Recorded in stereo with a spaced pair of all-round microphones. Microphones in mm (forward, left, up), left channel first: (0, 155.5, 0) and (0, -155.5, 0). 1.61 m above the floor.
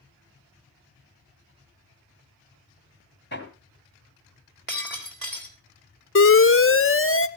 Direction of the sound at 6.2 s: 40° left (ahead or behind).